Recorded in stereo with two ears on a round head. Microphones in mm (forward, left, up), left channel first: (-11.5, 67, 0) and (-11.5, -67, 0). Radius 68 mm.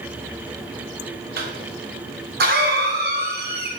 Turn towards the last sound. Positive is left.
turn(degrees=-65)  # may be behind; listen again after turning